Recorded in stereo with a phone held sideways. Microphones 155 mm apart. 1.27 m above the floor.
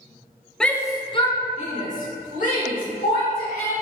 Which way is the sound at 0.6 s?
5° left (ahead or behind).